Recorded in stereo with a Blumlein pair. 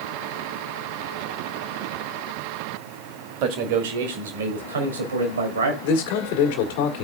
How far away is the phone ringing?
No phone ringing in this recording.